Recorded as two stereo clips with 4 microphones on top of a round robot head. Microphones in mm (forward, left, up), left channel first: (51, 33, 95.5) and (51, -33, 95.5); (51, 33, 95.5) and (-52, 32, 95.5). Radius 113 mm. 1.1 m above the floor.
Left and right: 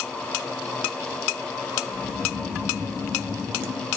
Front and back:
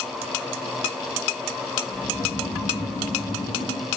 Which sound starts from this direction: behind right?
Snoring, at 1.9 s.